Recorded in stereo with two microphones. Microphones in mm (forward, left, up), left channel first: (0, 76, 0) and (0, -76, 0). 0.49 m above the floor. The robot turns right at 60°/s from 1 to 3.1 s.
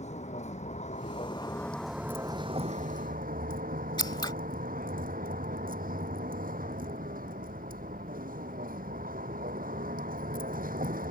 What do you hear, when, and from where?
0.0 s a vehicle: 130° left; by 11.1 s 105° right
4.0 s scissors: 30° left (ahead or behind)